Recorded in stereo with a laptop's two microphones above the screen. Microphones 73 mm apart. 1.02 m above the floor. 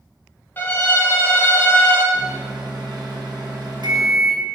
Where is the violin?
30° left (ahead or behind), 1.0 m.